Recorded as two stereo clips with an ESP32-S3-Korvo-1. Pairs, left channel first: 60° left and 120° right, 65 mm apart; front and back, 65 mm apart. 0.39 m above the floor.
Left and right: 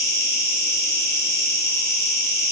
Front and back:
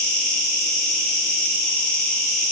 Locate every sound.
0.0 s an insect: 75° left, 0.8 m